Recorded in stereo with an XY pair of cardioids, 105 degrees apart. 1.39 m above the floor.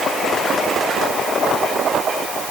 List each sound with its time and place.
Only background noise.